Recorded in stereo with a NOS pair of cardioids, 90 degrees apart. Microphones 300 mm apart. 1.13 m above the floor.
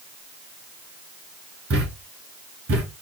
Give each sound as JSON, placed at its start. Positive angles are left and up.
{"t": 1.7, "sound": "a thud", "azimuth_deg": -50, "distance_m": 3.0}